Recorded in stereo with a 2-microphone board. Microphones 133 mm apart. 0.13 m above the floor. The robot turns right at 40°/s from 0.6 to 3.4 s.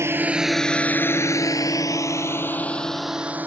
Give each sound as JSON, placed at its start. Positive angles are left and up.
{"t": 0.0, "sound": "a drone", "side_deg": -20}